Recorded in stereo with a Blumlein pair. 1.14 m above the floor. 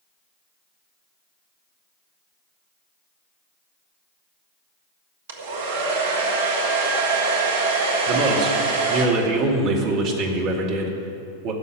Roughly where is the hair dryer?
Ahead right.